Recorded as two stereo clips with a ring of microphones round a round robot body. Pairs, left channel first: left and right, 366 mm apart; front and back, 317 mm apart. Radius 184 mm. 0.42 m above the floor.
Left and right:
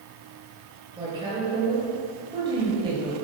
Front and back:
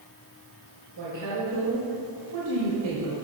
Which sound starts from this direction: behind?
A woman speaking, at 1.0 s.